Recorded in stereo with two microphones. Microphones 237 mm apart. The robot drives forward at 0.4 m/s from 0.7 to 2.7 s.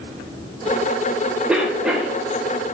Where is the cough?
5° right (ahead or behind), 0.9 m.